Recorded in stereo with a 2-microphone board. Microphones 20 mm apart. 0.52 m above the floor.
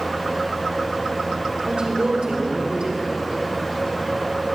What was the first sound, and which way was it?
A woman speaking, 55° right (ahead or behind).